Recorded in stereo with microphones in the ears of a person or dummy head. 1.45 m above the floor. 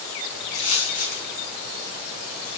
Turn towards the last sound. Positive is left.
turn(degrees=60)  # may be behind; listen again after turning